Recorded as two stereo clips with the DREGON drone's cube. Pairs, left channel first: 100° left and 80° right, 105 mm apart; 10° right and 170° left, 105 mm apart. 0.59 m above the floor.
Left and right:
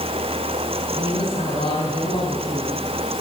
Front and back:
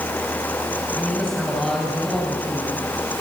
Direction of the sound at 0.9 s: 75° left.